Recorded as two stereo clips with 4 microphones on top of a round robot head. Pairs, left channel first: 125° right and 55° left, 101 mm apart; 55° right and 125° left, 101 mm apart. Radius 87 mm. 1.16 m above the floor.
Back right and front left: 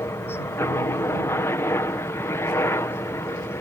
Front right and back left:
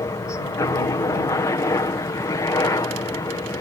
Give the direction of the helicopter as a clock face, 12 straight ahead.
3 o'clock.